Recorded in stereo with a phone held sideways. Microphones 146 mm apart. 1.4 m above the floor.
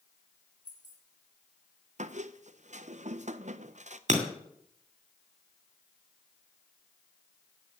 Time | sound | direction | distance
0.7 | keys jangling | 70° left (ahead or behind) | 3.5 m
2.0 | a squeak | 60° right (ahead or behind) | 0.6 m
4.1 | breaking glass | 60° right (ahead or behind) | 2.5 m